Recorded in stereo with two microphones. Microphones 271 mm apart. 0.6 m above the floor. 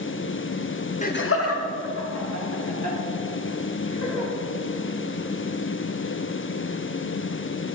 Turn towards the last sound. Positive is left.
turn(degrees=80)